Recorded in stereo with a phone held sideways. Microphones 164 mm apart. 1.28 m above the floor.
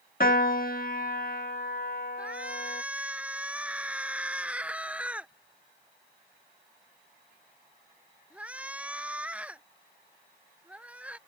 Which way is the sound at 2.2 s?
5° right (ahead or behind).